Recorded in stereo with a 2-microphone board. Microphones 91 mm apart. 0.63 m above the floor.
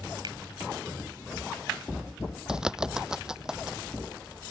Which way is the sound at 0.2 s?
60° right (ahead or behind).